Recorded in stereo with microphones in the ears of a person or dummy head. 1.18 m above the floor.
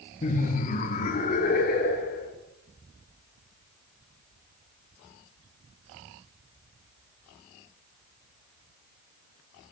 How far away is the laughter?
About 1.4 m.